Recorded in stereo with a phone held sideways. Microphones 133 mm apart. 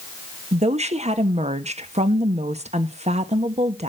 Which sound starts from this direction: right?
A woman speaking, at 0.5 s.